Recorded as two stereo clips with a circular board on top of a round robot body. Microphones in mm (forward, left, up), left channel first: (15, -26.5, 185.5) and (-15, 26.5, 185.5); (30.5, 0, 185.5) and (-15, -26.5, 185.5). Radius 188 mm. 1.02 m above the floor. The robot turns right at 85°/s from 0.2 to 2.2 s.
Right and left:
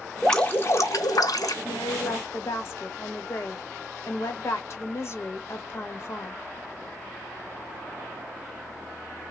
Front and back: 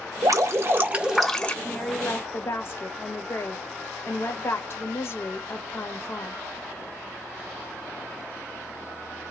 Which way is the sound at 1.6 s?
65° right.